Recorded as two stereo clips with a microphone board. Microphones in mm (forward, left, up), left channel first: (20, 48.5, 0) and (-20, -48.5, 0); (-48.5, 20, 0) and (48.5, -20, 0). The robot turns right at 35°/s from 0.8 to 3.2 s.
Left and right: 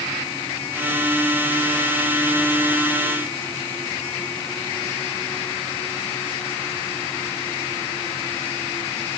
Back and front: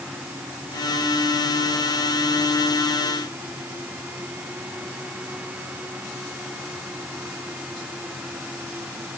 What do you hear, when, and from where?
Only background noise.